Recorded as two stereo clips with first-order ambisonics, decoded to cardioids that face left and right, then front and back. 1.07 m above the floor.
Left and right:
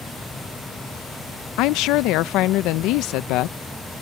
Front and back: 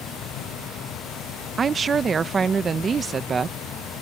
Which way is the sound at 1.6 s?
110° left.